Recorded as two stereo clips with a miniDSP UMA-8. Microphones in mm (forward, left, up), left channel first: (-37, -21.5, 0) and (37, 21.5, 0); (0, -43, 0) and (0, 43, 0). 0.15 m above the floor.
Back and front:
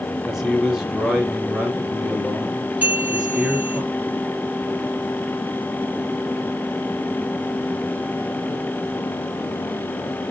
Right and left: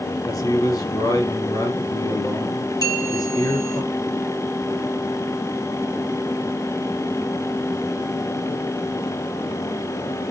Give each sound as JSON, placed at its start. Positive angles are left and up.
{"t": 0.2, "sound": "a man speaking", "azimuth_deg": -55, "distance_m": 3.0}
{"t": 2.8, "sound": "a bell", "azimuth_deg": -40, "distance_m": 3.5}